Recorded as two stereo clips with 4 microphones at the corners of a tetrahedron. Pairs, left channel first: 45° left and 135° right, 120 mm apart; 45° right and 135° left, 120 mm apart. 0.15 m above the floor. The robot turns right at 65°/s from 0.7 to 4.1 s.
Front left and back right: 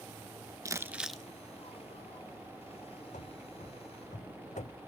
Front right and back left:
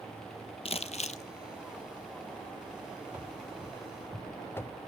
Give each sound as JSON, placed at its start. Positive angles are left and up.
{"t": 0.7, "sound": "crumpling", "azimuth_deg": -75, "distance_m": 0.9}
{"t": 3.1, "sound": "running footsteps", "azimuth_deg": 60, "distance_m": 0.8}